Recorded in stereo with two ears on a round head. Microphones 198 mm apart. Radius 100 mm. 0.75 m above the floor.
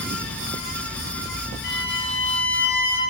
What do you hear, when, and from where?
1.6 s a violin: 45° left (ahead or behind), 3 m